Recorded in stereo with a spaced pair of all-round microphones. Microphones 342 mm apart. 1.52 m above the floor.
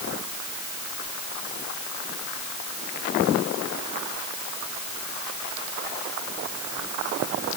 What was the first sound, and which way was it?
Only background noise.